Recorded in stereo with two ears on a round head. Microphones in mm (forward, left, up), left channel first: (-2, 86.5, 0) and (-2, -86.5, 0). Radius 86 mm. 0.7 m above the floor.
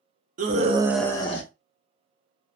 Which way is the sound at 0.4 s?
45° right (ahead or behind).